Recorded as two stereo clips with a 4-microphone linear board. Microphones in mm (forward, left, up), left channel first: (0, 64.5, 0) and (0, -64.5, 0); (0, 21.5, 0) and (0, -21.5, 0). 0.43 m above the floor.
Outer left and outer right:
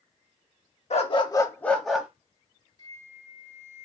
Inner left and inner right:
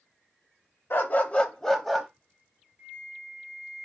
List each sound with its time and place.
0.9 s a dog barking: 55° left (ahead or behind), 0.6 m; by 2.1 s 5° right (ahead or behind), 0.8 m
2.8 s a flute: 25° right (ahead or behind), 2.0 m